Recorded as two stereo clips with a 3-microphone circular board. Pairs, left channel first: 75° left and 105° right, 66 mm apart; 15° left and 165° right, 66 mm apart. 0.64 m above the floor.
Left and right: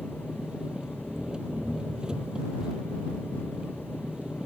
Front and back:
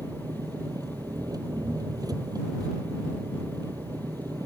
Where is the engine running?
175° left.